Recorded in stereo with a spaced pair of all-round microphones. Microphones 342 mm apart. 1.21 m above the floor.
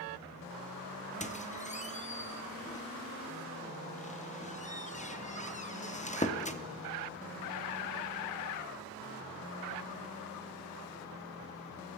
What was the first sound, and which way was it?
A squeak, 20° left (ahead or behind).